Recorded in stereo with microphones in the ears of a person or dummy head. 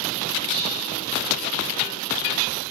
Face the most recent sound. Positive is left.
turn(degrees=50)  # may be behind; listen again after turning